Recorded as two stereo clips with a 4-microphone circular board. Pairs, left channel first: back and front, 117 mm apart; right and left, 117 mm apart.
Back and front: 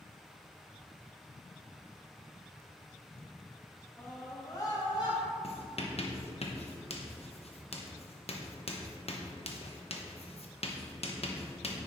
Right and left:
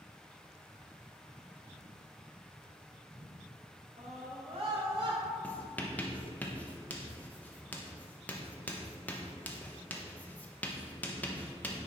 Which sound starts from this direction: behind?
Writing, at 5.4 s.